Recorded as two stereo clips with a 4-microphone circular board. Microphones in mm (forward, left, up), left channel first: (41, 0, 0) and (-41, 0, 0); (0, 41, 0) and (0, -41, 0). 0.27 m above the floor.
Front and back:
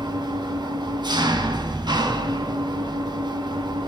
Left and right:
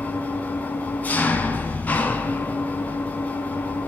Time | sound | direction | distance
0.0 | an engine running | 160° left | 0.8 m